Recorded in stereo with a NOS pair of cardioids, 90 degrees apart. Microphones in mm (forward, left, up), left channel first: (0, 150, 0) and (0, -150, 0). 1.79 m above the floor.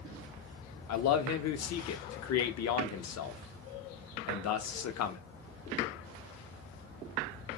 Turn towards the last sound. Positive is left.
turn(degrees=60)